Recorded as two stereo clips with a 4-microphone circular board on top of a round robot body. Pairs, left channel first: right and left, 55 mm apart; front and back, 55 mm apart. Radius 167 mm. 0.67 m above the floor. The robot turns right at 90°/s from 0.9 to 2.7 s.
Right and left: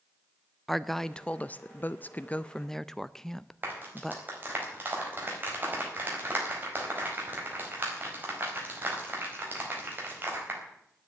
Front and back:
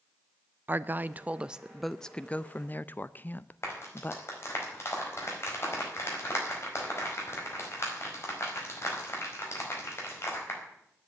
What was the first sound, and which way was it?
A woman speaking, 175° right.